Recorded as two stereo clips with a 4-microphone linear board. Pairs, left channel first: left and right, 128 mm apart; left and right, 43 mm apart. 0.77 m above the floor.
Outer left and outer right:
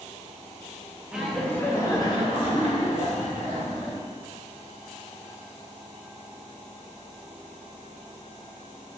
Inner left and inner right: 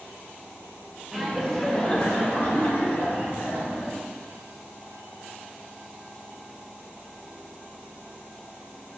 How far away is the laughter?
About 0.6 m.